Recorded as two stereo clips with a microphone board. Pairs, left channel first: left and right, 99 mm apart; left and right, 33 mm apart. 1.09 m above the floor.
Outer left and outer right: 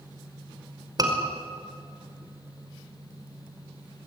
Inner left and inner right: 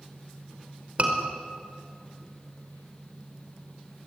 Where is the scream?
40° right (ahead or behind), 5 m.